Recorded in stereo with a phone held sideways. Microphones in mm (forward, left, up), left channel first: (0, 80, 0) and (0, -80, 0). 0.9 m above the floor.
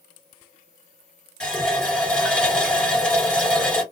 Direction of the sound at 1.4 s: 5° left (ahead or behind).